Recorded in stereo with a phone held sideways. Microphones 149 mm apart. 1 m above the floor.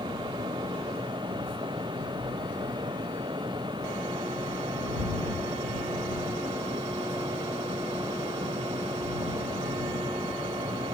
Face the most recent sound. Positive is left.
turn(degrees=-30)  # may be behind; listen again after turning